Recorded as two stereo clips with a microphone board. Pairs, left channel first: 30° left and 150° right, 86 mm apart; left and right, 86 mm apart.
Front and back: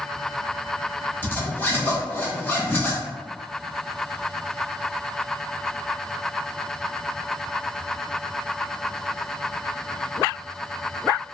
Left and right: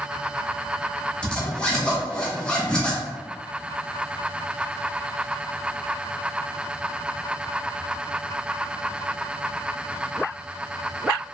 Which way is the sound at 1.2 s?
35° left.